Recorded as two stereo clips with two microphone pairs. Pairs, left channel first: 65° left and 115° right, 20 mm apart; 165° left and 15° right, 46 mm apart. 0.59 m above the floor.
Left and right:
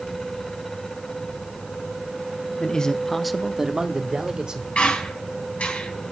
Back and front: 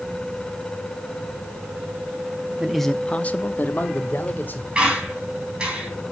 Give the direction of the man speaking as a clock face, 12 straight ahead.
10 o'clock.